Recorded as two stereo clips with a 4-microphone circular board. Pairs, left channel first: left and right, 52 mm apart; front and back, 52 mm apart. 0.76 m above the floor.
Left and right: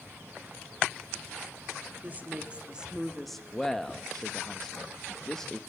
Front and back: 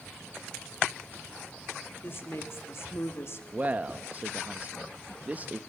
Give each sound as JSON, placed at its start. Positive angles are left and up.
{"t": 2.0, "sound": "a woman speaking", "azimuth_deg": -40, "distance_m": 1.9}
{"t": 3.5, "sound": "a man speaking", "azimuth_deg": 165, "distance_m": 0.7}